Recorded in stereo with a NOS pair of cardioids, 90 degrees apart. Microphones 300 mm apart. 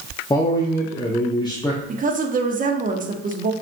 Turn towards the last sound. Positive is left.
turn(degrees=-25)